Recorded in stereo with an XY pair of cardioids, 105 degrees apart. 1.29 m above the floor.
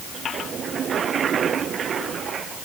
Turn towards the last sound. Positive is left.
No sound to turn to.